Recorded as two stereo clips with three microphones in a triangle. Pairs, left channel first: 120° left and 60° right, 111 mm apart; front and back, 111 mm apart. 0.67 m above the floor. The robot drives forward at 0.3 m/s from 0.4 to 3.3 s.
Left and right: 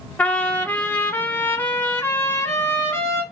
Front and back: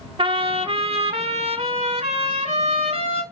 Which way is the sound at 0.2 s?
165° right.